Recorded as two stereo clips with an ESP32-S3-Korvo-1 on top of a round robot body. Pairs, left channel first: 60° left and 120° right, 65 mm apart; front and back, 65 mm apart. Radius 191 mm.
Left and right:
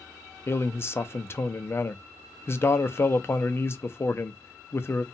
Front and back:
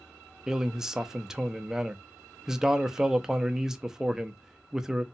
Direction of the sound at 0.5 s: 100° left.